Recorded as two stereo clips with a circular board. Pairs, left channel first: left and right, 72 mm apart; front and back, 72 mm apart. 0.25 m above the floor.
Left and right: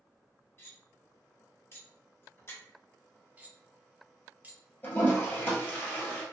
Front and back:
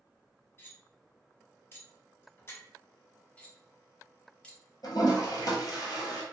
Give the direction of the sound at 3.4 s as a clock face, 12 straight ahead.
2 o'clock.